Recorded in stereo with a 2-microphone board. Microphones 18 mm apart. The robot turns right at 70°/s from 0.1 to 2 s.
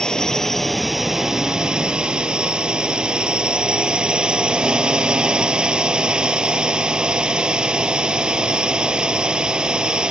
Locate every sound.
0.0 s a drone: 130° left; by 10.1 s 100° right